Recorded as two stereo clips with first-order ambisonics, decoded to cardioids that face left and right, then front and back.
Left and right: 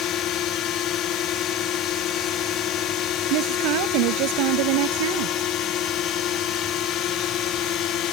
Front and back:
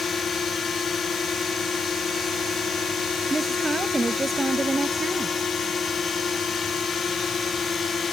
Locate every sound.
0.0 s a drone: 65° left
3.3 s a woman speaking: 100° right